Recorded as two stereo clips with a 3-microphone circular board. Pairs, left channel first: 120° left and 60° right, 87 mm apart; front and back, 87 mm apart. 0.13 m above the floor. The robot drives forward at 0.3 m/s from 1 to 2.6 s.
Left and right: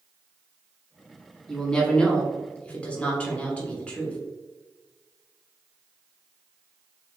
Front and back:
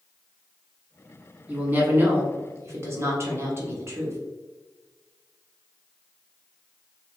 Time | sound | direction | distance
1.5 | a woman speaking | 175° right | 1.1 m